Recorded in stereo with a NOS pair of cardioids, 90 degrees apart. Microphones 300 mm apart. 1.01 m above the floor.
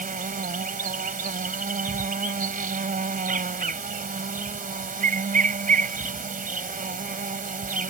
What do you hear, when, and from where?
0.0 s an insect: 25° right